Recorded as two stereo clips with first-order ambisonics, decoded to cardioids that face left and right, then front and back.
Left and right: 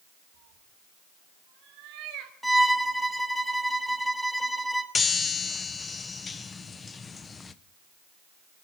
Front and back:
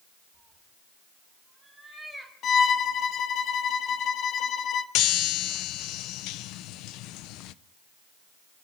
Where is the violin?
Straight ahead, 0.9 m.